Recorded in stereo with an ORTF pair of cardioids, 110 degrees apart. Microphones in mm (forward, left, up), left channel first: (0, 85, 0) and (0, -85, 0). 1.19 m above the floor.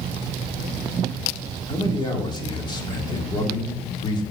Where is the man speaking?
25° left, 3 m.